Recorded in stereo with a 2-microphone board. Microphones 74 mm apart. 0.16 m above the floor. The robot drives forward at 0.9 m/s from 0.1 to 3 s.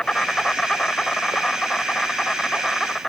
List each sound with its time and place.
0.0 s an insect: 10° left (ahead or behind)